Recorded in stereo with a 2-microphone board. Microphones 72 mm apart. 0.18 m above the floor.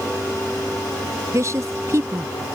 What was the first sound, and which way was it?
A woman speaking, 45° right (ahead or behind).